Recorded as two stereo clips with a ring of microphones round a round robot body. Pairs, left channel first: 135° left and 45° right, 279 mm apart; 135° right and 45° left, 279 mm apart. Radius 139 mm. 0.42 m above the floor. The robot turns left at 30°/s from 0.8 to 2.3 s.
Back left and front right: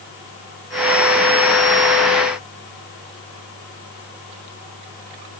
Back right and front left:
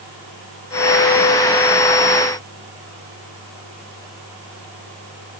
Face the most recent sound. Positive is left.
No sound to turn to.